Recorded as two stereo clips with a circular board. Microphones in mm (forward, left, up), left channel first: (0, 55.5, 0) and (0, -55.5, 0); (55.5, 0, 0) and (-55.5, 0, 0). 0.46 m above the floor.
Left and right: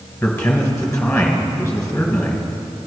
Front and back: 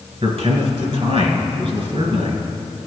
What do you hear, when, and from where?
0.2 s a man speaking: 160° left, 2.5 m